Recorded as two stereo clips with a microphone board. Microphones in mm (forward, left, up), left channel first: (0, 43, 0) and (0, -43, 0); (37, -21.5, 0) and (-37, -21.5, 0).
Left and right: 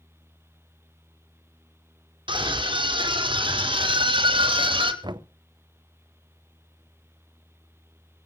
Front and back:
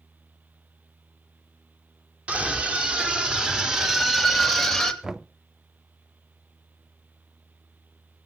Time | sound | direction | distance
2.3 | a scream | 105° right | 5 m
5.0 | knocking | 100° right | 0.7 m